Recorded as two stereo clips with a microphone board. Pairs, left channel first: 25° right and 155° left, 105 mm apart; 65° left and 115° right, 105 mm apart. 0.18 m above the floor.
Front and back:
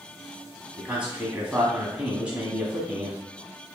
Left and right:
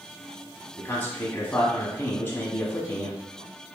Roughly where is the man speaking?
Left.